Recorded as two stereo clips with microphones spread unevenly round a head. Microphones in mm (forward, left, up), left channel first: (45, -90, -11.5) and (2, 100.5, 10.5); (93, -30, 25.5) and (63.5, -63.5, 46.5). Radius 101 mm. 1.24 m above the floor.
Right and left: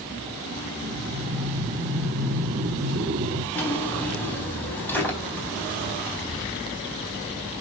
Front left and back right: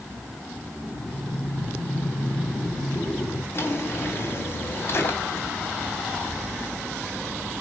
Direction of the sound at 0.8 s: 120° left.